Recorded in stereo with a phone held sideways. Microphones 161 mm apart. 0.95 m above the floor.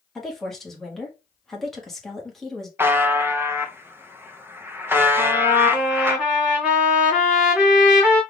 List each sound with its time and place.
0.1 s a woman speaking: centre (ahead or behind), 1.4 m
2.8 s a buzzer: 15° right (ahead or behind), 0.6 m
5.2 s a trumpet: 5° right (ahead or behind), 2 m